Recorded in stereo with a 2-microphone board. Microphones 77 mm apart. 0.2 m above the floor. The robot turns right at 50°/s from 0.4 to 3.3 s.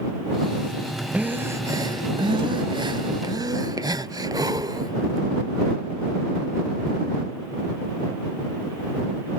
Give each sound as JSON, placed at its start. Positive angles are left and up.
{"t": 1.1, "sound": "breathing", "azimuth_deg": -160}